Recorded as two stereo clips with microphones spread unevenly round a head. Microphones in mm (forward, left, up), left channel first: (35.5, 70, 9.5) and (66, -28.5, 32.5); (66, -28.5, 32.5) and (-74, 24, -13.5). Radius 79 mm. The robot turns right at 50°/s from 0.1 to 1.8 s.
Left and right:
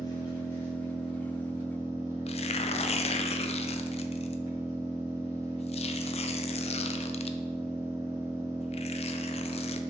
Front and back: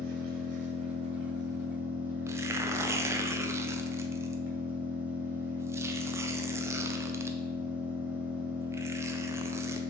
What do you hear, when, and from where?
0.0 s an engine running: 170° left, 1.7 m; by 9.9 s 105° right, 1.7 m
2.3 s tearing paper: 85° left, 0.6 m